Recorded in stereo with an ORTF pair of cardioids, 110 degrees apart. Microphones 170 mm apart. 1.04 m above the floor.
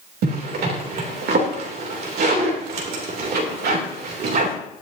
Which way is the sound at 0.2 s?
65° right.